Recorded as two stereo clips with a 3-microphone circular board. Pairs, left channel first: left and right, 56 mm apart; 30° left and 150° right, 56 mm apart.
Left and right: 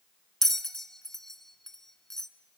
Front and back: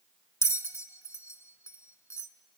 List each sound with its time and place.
0.4 s a bell: 10° left, 0.7 m